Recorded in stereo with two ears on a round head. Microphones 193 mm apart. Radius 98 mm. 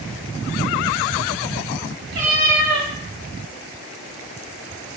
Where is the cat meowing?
45° right (ahead or behind), 0.9 m.